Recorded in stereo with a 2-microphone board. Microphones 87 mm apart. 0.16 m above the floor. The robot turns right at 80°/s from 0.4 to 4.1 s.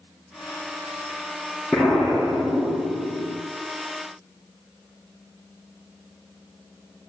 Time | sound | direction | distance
1.7 | an explosion | 175° left | 4.5 m